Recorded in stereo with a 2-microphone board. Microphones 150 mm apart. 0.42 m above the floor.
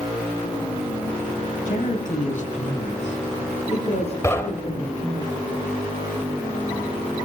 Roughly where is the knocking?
Centre.